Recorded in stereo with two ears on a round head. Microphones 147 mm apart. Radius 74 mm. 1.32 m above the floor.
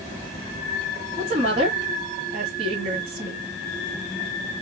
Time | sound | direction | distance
1.2 | a woman speaking | 40° right (ahead or behind) | 2 m